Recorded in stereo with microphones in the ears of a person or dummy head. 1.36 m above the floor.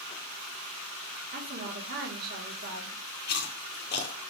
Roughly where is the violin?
No violin in this recording.